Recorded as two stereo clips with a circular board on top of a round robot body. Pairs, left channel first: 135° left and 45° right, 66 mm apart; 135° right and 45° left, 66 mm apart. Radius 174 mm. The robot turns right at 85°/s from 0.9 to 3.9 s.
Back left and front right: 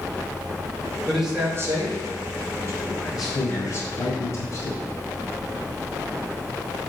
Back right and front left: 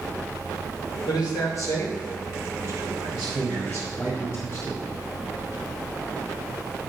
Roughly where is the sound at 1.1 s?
Behind right.